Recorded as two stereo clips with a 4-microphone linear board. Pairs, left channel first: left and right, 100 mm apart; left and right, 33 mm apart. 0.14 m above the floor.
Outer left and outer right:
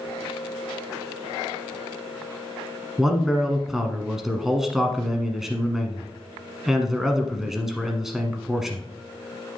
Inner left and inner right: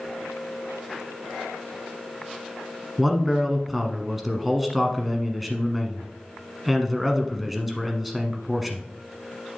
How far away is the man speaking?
About 1.2 m.